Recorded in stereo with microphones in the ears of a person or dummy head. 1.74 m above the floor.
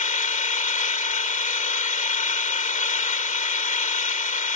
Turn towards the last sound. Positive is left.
turn(degrees=35)  # may be behind; listen again after turning